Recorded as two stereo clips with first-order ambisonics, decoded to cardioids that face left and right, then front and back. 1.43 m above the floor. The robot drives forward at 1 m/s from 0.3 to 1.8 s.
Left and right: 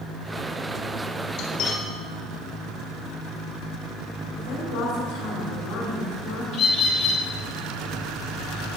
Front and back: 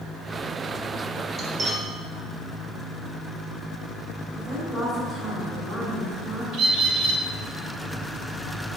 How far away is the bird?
About 2.5 m.